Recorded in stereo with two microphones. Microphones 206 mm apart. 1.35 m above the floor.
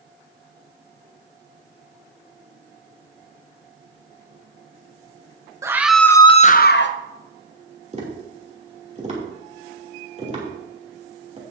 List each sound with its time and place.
5.6 s a scream: 15° right (ahead or behind), 1.1 m; by 7.0 s 65° left (ahead or behind), 1.1 m
7.9 s tapping: 35° right (ahead or behind), 2.5 m